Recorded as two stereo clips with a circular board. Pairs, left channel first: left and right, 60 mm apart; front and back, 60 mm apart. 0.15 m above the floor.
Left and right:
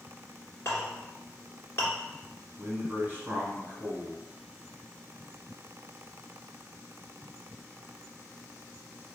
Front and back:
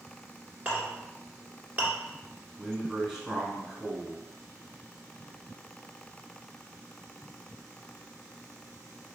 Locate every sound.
0.7 s a clink: 125° left, 1.6 m
2.6 s a man speaking: 100° right, 1.4 m